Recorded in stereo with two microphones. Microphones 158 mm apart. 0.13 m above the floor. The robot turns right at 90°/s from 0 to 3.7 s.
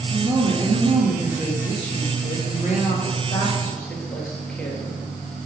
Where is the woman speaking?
155° right, 2.5 m; by 5.1 s 170° left, 2.5 m.